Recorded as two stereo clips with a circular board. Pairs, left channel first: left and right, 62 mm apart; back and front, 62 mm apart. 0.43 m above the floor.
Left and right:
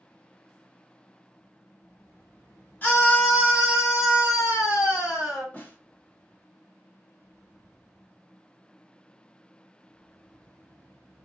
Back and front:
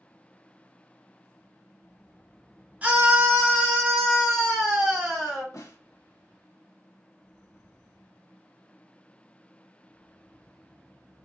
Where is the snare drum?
150° left, 0.9 m.